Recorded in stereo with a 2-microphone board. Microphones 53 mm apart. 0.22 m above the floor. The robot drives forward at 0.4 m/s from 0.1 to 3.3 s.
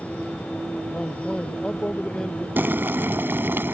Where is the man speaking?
20° left (ahead or behind); by 2.5 s 15° left (ahead or behind).